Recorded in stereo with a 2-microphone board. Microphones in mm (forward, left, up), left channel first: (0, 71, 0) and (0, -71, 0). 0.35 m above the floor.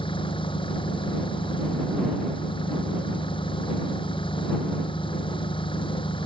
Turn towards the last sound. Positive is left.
turn(degrees=35)  # may be behind; listen again after turning